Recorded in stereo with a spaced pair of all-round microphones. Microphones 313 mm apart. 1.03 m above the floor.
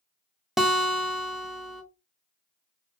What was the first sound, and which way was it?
A guitar, centre (ahead or behind).